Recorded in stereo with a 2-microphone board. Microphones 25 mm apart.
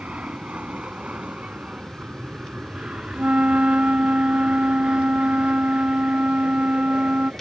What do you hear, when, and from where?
0.0 s an aircraft: 60° right (ahead or behind); by 7.4 s 40° right (ahead or behind)
3.1 s a flute: 75° right (ahead or behind)